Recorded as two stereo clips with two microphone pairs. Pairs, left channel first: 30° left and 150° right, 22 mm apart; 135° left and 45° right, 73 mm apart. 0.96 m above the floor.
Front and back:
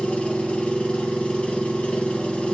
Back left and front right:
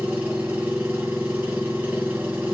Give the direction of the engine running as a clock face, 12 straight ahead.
11 o'clock.